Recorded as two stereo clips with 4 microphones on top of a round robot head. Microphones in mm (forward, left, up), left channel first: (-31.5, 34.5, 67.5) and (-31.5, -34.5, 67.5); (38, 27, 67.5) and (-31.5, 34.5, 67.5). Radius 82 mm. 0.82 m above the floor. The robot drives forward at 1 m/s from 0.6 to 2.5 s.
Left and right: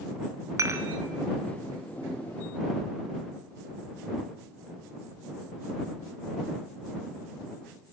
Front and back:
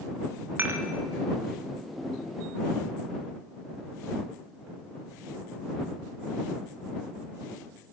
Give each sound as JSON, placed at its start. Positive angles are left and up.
{"t": 0.6, "sound": "dishes clattering", "azimuth_deg": -125, "distance_m": 0.5}